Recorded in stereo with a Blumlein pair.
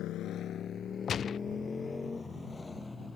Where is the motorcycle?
35° left; by 3.2 s 5° left.